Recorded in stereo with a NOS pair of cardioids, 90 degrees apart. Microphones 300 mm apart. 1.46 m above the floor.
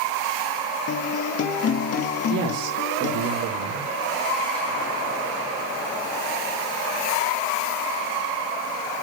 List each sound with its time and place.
0.9 s a guitar: 50° left, 1.8 m
2.3 s a man speaking: 65° right, 2.5 m